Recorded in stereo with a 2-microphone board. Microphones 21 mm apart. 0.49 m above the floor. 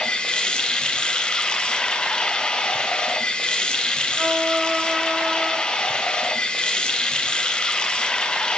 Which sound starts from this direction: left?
Running water, at 0.0 s.